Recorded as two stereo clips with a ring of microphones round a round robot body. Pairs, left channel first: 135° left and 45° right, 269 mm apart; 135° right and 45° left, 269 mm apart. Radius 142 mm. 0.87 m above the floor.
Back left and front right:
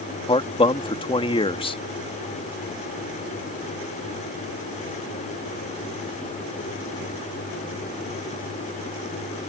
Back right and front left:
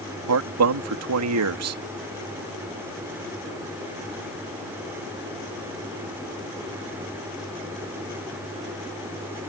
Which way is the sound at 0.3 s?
65° left.